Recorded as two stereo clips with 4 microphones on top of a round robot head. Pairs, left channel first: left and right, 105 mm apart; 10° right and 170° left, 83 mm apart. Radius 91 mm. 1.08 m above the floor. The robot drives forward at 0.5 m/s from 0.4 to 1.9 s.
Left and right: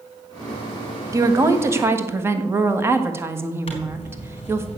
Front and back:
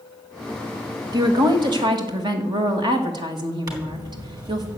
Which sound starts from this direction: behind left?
A zipper, at 3.7 s.